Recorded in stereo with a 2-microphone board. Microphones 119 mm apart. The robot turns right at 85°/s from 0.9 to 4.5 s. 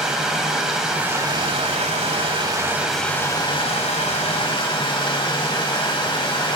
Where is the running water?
175° right, 1.3 m; by 6.5 s 130° left, 1.3 m.